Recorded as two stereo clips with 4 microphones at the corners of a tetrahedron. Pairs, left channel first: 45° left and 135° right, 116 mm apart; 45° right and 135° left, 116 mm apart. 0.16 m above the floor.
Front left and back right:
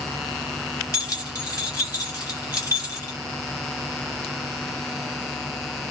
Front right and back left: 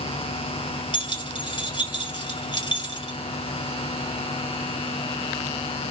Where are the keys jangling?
5° right, 2.0 m.